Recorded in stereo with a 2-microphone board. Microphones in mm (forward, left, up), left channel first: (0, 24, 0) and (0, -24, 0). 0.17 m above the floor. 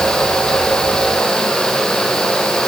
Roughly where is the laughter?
No laughter in this recording.